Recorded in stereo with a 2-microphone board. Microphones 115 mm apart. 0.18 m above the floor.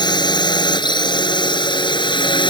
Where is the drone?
40° left (ahead or behind); by 2.5 s 45° left (ahead or behind).